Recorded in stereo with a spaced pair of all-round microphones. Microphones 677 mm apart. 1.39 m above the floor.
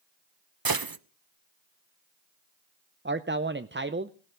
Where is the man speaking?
20° right (ahead or behind), 0.5 m.